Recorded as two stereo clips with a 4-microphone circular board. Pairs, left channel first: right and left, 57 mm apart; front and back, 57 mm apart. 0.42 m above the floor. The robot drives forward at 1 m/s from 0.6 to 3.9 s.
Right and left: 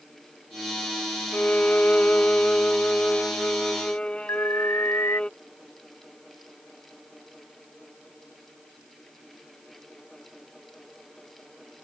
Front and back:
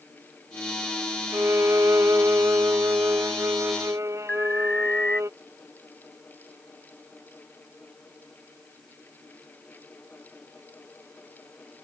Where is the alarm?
70° right.